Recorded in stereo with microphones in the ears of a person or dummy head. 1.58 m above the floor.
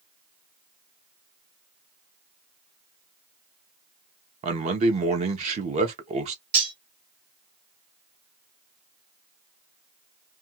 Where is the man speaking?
35° right (ahead or behind), 0.9 m.